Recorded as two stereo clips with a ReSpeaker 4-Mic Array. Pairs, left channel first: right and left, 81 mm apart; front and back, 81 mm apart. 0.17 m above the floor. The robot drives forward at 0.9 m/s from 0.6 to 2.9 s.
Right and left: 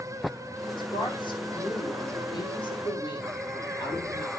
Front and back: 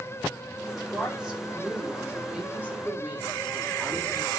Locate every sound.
0.8 s a woman speaking: 90° right, 6.5 m; by 4.3 s 110° right, 7 m